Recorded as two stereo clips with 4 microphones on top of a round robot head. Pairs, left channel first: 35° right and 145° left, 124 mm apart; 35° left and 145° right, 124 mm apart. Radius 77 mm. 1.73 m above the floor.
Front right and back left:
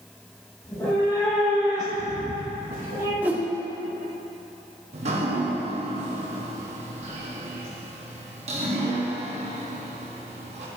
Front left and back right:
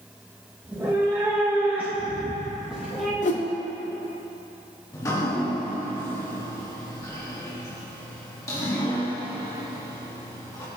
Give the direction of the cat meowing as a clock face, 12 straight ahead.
3 o'clock.